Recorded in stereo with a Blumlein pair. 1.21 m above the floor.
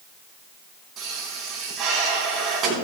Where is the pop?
30° right, 4.5 m.